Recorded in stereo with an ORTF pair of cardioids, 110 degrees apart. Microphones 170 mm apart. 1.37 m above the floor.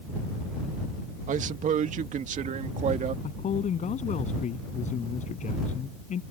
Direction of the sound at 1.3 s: 50° right.